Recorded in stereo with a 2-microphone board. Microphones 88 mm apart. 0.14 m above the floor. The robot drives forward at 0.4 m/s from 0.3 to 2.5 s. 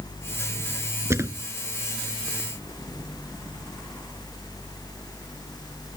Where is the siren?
I don't hear a siren.